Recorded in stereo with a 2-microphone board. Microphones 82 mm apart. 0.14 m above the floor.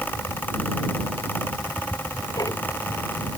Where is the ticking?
45° left (ahead or behind).